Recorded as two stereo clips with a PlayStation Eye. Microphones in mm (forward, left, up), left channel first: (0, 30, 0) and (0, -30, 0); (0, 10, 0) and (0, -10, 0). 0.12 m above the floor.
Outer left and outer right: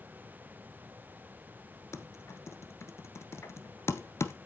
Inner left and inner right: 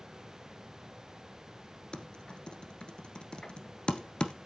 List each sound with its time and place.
1.9 s typing on a keyboard: 45° left (ahead or behind), 1.4 m